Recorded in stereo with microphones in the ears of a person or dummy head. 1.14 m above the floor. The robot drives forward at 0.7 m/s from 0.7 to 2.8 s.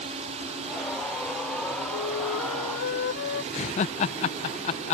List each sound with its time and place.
0.0 s a drone: 35° right (ahead or behind)
1.9 s a flute: 65° left (ahead or behind)
3.5 s laughter: 30° left (ahead or behind)